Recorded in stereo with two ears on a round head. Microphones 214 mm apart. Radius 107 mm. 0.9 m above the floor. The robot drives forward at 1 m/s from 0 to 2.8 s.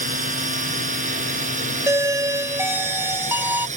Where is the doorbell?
10° right (ahead or behind).